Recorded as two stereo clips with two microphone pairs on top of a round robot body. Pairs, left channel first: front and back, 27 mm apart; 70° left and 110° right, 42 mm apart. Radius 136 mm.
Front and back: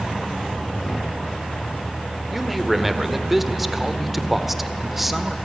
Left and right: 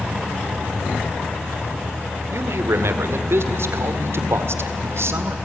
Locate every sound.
2.3 s a man speaking: 100° right, 2 m